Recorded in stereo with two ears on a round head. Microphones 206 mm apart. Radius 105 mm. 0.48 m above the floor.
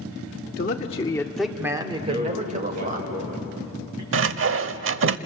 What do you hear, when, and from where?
0.6 s a man speaking: 40° left (ahead or behind), 1.5 m; by 3.0 s 40° right (ahead or behind), 2.5 m
2.0 s a man speaking: 80° right, 7.5 m
4.1 s sawing: 60° right (ahead or behind), 0.8 m